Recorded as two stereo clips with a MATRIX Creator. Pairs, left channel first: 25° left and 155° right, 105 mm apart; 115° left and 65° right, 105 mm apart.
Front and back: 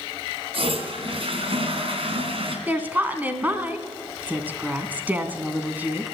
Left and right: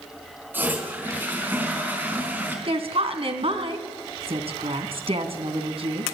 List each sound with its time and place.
0.5 s a toilet flushing: 140° right, 4 m
2.7 s a woman speaking: 85° right, 2.5 m